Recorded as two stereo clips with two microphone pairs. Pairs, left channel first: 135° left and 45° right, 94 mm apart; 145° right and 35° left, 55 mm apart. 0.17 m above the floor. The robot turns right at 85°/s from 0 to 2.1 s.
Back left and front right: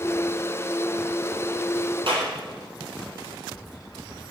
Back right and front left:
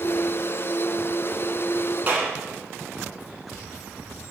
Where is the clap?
20° right, 3.5 m.